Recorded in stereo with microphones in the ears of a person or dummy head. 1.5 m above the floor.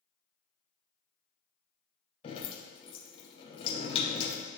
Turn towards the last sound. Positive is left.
turn(degrees=25)  # may be behind; listen again after turning